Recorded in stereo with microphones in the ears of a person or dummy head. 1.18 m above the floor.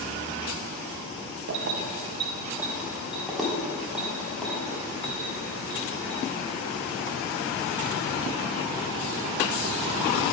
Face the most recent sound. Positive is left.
turn(degrees=10)  # may be behind; listen again after turning